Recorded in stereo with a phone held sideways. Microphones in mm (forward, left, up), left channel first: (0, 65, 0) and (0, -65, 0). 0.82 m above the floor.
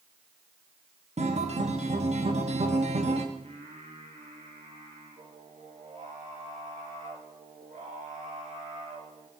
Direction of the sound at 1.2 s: 60° right (ahead or behind).